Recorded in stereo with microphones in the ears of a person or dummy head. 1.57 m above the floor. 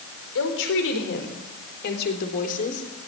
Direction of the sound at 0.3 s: 75° left (ahead or behind).